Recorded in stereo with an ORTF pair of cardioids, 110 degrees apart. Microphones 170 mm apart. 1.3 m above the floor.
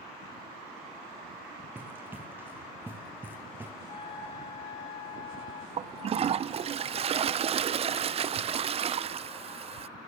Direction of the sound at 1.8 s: 10° right.